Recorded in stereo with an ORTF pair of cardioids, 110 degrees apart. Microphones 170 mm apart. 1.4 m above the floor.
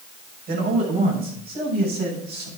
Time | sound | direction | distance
0.5 | a man speaking | 60° right | 5.5 m